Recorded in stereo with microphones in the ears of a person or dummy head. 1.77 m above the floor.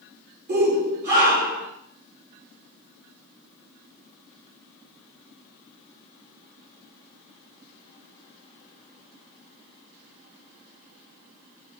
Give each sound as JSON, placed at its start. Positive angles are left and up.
{"t": 0.5, "sound": "a shout", "side_deg": -55, "distance_m": 5.0}